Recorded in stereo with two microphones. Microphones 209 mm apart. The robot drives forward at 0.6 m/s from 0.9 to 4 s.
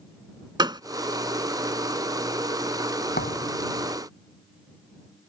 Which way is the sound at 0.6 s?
20° right (ahead or behind).